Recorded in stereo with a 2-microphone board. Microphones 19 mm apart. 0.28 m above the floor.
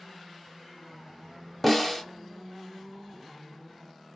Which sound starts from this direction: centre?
A snare drum, at 1.6 s.